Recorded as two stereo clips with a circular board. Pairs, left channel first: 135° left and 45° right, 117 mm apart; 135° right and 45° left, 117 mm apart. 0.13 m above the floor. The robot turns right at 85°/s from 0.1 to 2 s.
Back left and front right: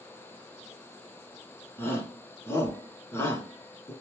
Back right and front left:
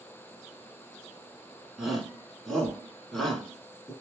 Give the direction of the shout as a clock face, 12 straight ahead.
8 o'clock.